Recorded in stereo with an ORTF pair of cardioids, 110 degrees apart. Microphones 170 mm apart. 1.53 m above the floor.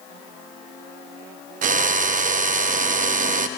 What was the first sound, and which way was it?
A drill, 50° right.